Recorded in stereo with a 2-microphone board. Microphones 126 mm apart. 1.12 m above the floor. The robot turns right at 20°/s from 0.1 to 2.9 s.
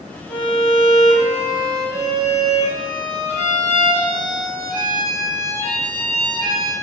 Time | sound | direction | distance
0.3 | a violin | 140° right | 1.7 m